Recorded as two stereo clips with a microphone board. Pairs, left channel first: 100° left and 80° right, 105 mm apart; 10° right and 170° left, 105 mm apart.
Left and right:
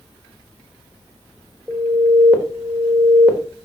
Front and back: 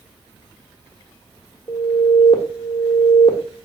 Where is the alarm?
10° right, 1.4 m.